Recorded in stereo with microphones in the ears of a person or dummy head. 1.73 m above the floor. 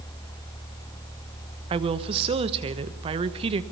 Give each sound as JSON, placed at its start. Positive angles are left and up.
{"t": 1.7, "sound": "a woman speaking", "side_deg": -35, "distance_m": 1.3}